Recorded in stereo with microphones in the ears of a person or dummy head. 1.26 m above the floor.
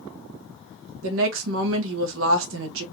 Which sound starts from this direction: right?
A woman speaking, at 1.0 s.